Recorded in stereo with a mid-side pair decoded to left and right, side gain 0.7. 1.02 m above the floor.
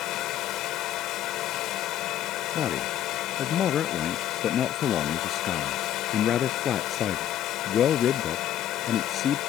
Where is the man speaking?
35° left.